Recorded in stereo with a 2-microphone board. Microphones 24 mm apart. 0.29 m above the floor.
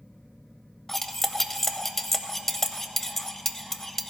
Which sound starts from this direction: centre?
Cutlery clinking, at 0.9 s.